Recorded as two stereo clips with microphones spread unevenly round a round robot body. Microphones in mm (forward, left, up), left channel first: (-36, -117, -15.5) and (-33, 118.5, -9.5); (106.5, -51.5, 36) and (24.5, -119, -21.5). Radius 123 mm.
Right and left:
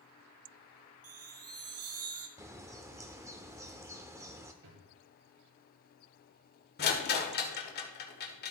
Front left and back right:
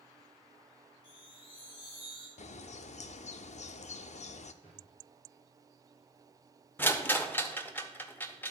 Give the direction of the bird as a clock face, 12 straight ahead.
12 o'clock.